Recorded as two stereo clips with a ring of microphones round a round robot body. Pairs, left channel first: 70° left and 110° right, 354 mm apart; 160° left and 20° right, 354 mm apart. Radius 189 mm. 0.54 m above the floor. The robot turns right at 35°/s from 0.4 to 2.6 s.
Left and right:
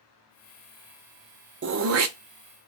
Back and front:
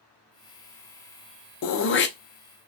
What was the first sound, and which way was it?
Throat clearing, 165° right.